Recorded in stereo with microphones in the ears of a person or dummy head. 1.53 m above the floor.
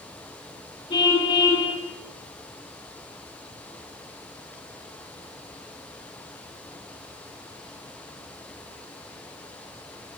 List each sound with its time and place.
0.9 s a car horn: 25° left (ahead or behind), 7 m